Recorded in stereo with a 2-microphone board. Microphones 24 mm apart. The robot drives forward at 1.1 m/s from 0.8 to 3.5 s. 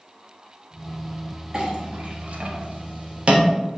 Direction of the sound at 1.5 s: 35° right (ahead or behind).